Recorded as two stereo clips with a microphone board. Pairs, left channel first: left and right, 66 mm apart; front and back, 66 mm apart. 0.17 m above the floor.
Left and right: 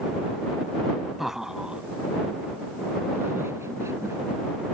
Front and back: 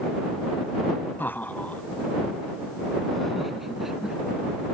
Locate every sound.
1.2 s laughter: 5° right; by 4.2 s 100° right